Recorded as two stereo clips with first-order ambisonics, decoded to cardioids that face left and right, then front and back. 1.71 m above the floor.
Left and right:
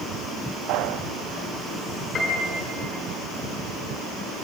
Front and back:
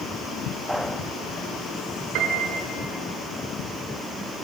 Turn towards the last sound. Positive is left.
turn(degrees=155)